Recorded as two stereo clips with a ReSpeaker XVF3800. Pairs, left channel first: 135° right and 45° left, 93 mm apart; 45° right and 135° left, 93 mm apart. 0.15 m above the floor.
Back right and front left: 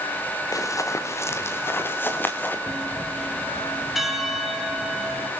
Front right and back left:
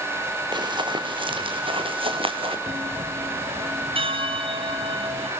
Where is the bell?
135° left, 3.5 m.